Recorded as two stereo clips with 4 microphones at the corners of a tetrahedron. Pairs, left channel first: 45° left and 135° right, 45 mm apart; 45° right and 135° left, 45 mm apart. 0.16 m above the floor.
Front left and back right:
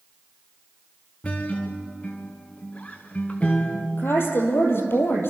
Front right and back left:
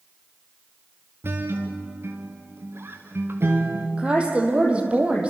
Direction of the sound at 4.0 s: 75° left.